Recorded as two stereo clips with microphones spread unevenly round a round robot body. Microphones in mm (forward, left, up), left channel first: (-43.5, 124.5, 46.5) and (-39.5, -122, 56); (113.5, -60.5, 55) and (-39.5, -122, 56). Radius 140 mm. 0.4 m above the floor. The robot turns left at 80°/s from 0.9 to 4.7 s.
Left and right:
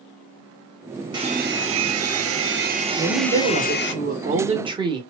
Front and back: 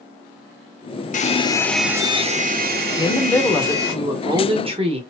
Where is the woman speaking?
10° right, 0.9 m; by 5.0 s 150° right, 0.9 m.